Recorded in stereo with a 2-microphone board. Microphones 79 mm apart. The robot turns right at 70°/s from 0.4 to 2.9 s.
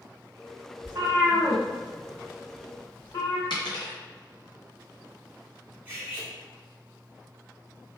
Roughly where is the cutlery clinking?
Right.